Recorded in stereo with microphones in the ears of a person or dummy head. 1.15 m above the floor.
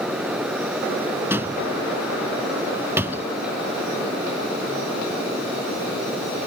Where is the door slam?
10° right (ahead or behind).